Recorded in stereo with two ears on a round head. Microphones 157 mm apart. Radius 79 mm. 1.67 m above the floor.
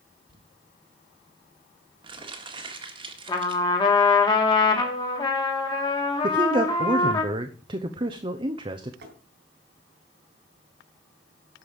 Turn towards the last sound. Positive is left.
turn(degrees=-65)  # may be behind; listen again after turning